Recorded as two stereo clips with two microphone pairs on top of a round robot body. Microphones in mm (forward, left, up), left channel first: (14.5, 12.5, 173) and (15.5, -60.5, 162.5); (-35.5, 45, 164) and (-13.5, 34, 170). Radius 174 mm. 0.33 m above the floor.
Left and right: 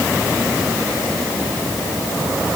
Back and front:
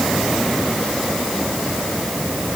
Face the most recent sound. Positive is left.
No sound to turn to.